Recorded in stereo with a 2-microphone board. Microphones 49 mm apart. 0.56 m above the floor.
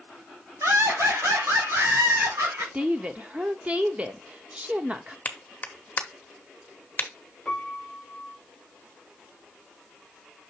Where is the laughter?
80° right, 3 m; by 2.6 s 70° right (ahead or behind), 4 m.